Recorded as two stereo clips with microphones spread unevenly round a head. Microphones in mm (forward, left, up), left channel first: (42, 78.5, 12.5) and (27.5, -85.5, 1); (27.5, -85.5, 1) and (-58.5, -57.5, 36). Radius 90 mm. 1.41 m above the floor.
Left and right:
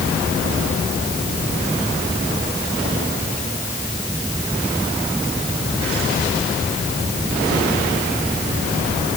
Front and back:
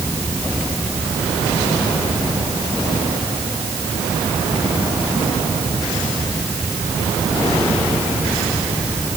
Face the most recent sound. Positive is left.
No sound to turn to.